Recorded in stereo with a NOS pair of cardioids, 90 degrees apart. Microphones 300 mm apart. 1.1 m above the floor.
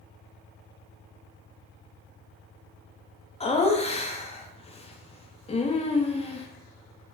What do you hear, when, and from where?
3.4 s laughter: 20° left, 0.6 m